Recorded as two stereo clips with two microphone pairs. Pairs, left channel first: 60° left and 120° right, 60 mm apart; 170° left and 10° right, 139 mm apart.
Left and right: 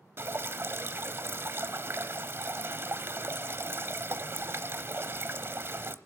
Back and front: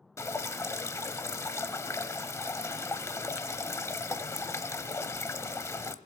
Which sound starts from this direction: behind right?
Dripping, at 0.2 s.